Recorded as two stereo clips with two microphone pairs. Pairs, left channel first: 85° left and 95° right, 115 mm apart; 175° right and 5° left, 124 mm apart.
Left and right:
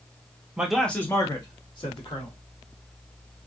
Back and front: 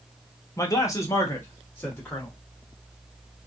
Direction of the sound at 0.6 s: 165° right.